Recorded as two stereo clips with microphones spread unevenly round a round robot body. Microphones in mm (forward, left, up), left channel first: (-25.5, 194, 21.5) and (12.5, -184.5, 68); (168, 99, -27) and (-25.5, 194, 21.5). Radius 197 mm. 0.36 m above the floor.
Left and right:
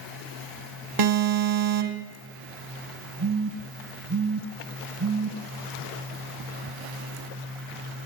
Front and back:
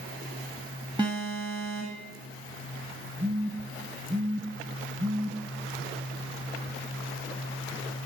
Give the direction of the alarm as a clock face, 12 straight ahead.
4 o'clock.